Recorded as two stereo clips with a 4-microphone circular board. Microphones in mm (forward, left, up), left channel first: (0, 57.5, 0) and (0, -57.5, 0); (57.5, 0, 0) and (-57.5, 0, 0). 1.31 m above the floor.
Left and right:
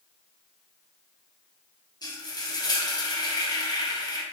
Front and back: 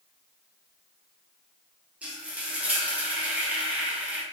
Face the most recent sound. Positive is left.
turn(degrees=105)